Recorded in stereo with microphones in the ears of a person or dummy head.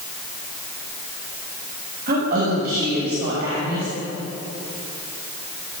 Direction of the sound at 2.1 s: 55° right (ahead or behind).